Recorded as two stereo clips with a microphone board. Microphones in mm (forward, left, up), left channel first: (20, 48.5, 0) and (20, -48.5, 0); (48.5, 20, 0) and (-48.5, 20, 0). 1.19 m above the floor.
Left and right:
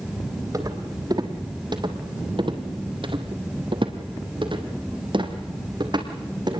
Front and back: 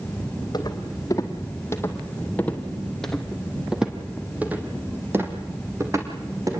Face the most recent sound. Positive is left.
turn(degrees=-130)